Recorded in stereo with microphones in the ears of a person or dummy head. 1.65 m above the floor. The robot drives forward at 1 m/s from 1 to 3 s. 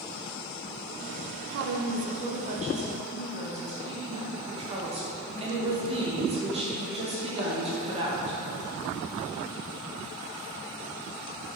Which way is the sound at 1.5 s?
70° right (ahead or behind).